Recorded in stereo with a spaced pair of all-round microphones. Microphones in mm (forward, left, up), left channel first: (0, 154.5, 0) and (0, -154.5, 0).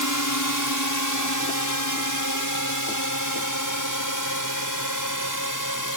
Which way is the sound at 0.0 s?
70° left (ahead or behind).